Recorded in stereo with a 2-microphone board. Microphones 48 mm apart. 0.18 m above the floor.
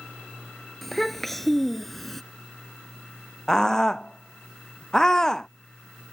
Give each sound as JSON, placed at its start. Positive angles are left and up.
{"t": 0.8, "sound": "a child speaking", "side_deg": 5}
{"t": 3.5, "sound": "a scream", "side_deg": 15}